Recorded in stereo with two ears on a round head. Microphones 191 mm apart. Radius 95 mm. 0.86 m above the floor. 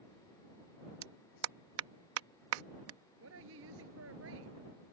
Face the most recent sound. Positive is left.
turn(degrees=-65)  # may be behind; listen again after turning